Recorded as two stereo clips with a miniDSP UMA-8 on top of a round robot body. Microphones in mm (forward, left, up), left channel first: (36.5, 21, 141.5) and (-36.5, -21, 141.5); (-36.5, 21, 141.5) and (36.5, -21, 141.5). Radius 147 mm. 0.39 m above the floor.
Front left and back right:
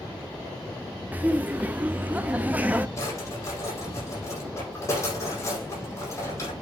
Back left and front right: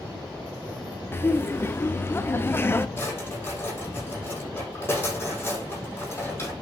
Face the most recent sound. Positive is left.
turn(degrees=85)